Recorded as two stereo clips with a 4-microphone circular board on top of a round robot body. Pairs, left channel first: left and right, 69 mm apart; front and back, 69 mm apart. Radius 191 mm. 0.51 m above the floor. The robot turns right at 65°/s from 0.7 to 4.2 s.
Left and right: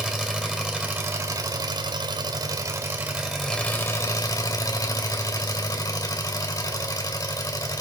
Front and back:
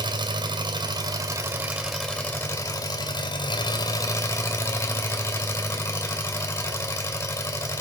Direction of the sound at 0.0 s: 170° right.